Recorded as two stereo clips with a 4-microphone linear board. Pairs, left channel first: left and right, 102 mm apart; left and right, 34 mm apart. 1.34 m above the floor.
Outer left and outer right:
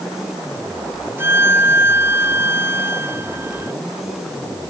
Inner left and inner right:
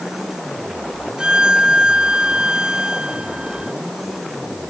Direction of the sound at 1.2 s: 25° right (ahead or behind).